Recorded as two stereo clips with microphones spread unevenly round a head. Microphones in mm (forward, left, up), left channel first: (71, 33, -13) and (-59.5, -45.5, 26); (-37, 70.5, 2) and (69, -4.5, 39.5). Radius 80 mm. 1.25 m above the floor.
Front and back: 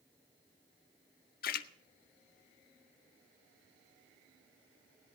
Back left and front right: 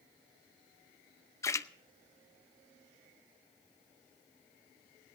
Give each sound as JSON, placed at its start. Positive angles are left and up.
{"t": 1.4, "sound": "a splash", "azimuth_deg": 70, "distance_m": 0.7}